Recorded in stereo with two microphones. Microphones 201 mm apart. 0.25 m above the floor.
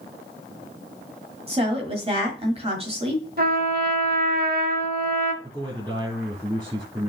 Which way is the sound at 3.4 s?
50° right (ahead or behind).